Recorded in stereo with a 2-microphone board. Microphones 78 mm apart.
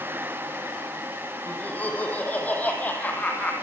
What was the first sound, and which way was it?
Laughter, 20° left (ahead or behind).